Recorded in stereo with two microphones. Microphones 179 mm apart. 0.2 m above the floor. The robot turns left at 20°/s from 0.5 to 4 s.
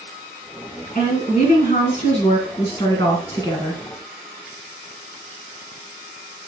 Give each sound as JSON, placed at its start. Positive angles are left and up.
{"t": 0.9, "sound": "a woman speaking", "azimuth_deg": 85, "distance_m": 1.8}